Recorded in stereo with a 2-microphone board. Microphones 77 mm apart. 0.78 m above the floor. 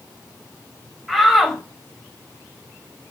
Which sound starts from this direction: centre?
A shout, at 1.1 s.